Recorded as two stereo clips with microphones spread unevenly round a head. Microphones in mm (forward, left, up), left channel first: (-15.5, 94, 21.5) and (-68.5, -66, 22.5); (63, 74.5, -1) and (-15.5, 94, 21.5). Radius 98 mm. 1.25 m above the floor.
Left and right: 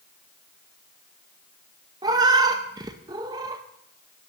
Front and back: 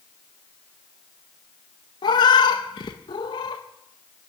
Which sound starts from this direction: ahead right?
A cat meowing, at 2.0 s.